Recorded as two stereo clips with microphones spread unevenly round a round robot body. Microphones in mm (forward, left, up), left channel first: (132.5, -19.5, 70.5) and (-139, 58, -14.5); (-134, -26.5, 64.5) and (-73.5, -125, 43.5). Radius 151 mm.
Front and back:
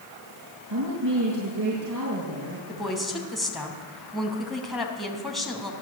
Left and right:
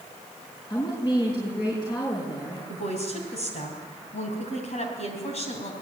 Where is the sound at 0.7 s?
170° left, 5.5 m.